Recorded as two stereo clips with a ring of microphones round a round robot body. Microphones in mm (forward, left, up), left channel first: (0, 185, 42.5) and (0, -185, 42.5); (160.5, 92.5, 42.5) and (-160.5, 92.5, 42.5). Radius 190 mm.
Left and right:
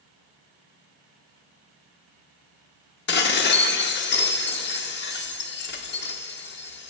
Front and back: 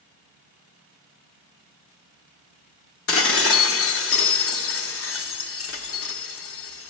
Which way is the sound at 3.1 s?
35° left.